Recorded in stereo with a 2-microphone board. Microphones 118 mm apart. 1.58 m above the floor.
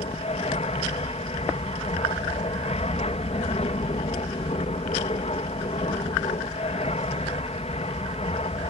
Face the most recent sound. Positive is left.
turn(degrees=65)  # may be behind; listen again after turning